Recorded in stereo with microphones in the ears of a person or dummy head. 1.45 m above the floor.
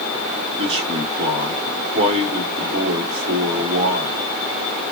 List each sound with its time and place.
0.6 s a man speaking: 30° right (ahead or behind), 1.8 m